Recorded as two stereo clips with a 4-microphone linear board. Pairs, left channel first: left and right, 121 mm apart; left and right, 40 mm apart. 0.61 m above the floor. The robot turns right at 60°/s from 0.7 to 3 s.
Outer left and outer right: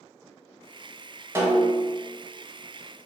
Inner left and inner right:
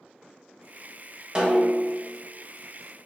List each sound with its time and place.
1.4 s a snare drum: 20° right, 1.4 m; by 2.0 s 15° left, 1.4 m